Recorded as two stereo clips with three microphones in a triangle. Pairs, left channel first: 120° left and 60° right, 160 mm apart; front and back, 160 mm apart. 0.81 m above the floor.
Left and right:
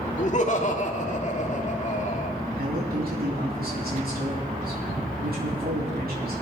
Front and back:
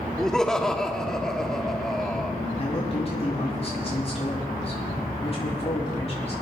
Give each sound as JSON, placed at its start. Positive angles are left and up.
{"t": 0.2, "sound": "laughter", "azimuth_deg": 85, "distance_m": 1.9}
{"t": 2.6, "sound": "a man speaking", "azimuth_deg": -50, "distance_m": 7.5}